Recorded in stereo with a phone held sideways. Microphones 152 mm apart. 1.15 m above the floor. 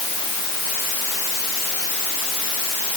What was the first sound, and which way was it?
Only background noise.